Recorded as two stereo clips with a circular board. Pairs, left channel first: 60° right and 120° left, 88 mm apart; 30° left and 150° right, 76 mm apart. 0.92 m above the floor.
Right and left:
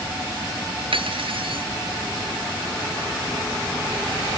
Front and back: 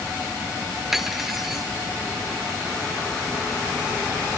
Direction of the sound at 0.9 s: 125° left.